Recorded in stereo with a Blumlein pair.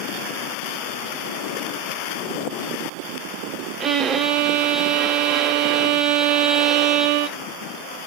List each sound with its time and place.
3.8 s a violin: 25° right, 0.7 m